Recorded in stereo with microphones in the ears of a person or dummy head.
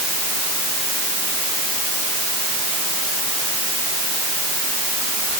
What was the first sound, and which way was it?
Only background noise.